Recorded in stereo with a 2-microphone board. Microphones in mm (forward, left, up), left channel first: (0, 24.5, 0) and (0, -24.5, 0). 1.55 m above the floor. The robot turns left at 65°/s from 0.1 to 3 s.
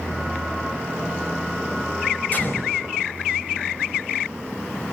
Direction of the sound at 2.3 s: 35° left (ahead or behind).